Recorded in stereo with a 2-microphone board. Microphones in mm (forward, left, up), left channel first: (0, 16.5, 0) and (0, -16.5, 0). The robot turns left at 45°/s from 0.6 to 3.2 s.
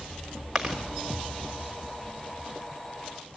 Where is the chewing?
5° right (ahead or behind), 3 m; by 0.8 s 5° left (ahead or behind), 3 m.